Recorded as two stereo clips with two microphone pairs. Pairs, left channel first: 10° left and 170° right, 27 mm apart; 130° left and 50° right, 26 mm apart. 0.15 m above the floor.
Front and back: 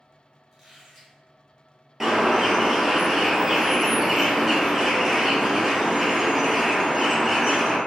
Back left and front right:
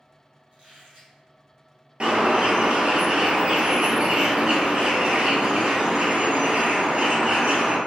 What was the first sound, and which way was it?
A squeak, 80° right.